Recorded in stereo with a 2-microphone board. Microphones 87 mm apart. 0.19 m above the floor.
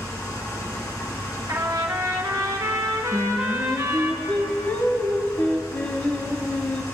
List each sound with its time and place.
0.0 s an engine running: 45° left (ahead or behind), 2.5 m
1.5 s a trumpet: 45° right (ahead or behind), 1.6 m
3.1 s singing: 20° left (ahead or behind), 1.3 m